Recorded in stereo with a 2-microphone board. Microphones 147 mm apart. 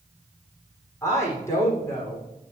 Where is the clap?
No clap in this recording.